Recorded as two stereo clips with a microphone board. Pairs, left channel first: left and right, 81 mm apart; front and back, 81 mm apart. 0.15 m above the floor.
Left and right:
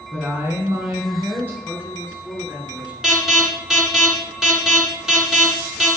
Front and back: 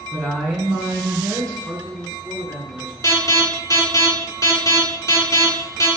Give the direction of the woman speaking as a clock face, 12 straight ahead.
2 o'clock.